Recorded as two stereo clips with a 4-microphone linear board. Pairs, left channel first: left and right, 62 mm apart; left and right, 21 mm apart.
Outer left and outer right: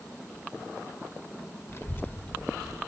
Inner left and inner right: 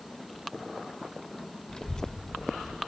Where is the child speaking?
40° left (ahead or behind), 0.8 m; by 2.8 s centre (ahead or behind), 0.7 m.